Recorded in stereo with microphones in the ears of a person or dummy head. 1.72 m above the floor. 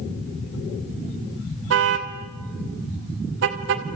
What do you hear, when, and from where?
1.7 s a car horn: 65° right (ahead or behind), 3 m; by 4.0 s 55° right (ahead or behind), 2.0 m